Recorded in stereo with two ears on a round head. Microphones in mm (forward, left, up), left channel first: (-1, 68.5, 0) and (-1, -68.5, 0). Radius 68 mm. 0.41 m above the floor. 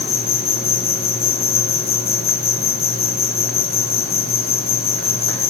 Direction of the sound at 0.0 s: 70° left (ahead or behind).